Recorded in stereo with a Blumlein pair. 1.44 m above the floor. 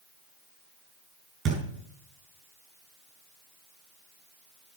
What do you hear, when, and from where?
1.4 s a thud: 25° right, 6 m